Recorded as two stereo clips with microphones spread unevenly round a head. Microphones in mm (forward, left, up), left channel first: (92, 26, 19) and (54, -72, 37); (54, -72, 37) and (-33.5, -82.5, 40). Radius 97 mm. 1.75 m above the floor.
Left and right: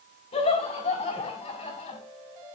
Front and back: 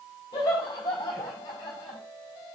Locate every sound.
0.3 s laughter: 60° left, 4 m